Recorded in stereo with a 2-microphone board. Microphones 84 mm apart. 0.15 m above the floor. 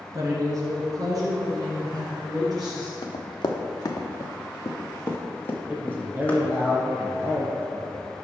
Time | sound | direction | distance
0.1 | a woman speaking | 40° right (ahead or behind) | 2 m
3.0 | running footsteps | 65° left (ahead or behind) | 1.2 m
5.7 | a man speaking | 25° right (ahead or behind) | 3 m